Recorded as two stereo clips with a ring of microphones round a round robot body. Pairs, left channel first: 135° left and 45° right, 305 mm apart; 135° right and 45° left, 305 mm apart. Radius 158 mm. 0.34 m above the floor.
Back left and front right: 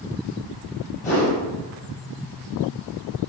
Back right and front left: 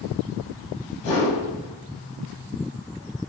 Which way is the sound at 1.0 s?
165° right.